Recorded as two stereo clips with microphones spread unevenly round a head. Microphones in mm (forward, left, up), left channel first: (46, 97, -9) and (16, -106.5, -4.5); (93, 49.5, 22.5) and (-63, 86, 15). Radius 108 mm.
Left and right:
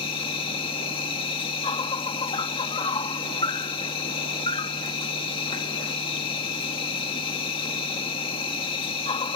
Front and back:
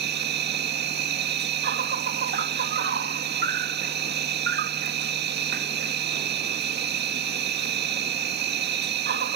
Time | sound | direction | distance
0.0 | an insect | 150° left | ?